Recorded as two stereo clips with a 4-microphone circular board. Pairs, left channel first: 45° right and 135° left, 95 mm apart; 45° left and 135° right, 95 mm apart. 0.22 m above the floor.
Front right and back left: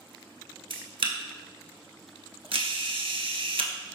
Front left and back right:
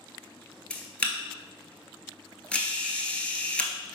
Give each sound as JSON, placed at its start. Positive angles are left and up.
{"t": 0.7, "sound": "a camera shutter", "azimuth_deg": 120, "distance_m": 0.6}